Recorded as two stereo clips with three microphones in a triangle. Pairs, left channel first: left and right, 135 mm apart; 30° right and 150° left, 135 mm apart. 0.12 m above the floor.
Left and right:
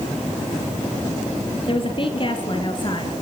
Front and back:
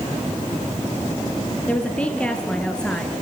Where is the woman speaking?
50° left, 3.5 m; by 3.2 s 55° left, 2.5 m.